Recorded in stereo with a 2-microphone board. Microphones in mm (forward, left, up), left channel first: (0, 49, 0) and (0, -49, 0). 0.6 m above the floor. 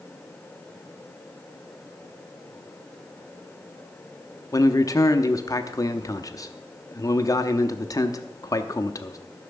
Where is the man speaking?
35° left (ahead or behind), 0.7 m.